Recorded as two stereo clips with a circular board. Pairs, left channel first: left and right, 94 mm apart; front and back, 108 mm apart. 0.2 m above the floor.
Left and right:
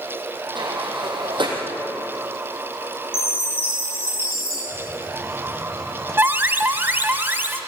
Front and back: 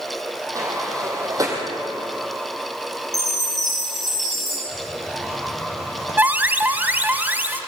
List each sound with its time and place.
0.6 s a sliding door: 120° right, 4.5 m
3.1 s a chime: 90° left, 10 m
4.7 s a hiss: 5° left, 4 m
6.2 s an alarm: 125° right, 1.2 m